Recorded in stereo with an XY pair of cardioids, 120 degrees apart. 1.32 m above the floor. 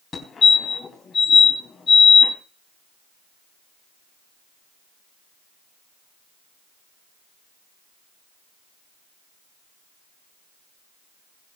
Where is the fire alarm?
35° left, 3.5 m.